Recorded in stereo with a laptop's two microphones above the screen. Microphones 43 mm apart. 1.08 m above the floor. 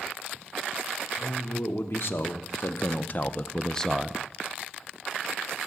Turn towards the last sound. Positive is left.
turn(degrees=-5)  # may be behind; listen again after turning